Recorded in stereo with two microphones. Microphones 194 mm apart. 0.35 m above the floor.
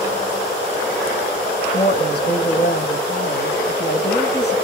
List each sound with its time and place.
1.7 s a woman speaking: 60° left (ahead or behind), 2.5 m